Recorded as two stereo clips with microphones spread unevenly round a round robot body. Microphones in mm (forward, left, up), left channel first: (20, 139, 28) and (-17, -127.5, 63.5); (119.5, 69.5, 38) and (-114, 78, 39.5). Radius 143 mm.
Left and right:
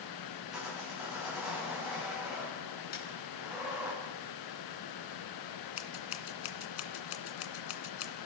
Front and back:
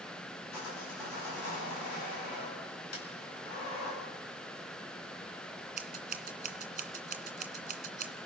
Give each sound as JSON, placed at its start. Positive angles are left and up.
{"t": 0.5, "sound": "sawing", "azimuth_deg": -10, "distance_m": 8.5}
{"t": 2.9, "sound": "a snare drum", "azimuth_deg": 25, "distance_m": 5.5}
{"t": 5.8, "sound": "scissors", "azimuth_deg": 125, "distance_m": 2.0}